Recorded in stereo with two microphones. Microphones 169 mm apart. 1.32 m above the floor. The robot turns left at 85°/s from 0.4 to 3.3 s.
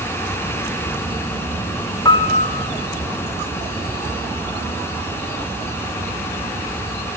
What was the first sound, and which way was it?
A piano, 155° left.